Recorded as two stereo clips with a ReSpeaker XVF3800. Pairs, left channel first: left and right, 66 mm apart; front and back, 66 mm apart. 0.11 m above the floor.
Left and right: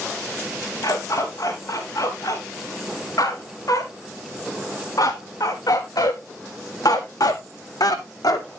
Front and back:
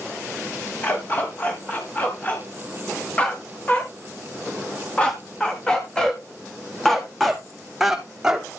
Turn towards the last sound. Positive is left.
turn(degrees=100)